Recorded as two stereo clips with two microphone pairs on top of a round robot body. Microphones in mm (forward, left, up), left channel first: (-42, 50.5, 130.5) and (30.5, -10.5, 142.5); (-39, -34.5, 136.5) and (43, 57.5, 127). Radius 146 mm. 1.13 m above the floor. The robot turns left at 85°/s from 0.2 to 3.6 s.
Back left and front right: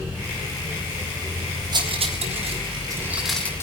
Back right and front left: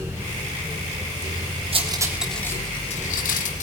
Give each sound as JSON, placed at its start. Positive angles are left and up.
{"t": 1.7, "sound": "cutlery clinking", "azimuth_deg": 5, "distance_m": 3.5}